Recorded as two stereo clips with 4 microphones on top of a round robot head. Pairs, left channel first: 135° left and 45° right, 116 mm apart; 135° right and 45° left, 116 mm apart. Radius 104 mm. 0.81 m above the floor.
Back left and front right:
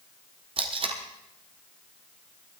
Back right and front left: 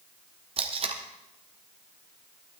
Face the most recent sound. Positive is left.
turn(degrees=5)